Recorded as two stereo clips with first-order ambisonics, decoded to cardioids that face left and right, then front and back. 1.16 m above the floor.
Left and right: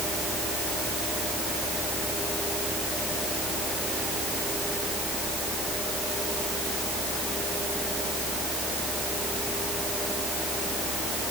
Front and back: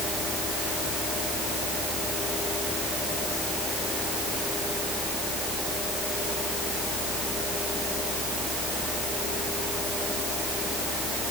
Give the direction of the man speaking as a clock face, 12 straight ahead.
No man speaking in this recording.